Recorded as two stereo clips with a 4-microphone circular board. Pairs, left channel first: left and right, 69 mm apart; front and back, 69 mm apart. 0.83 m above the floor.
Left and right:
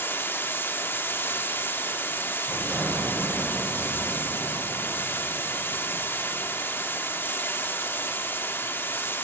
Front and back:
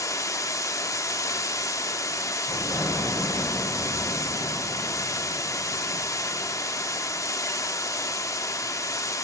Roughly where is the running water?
Ahead left.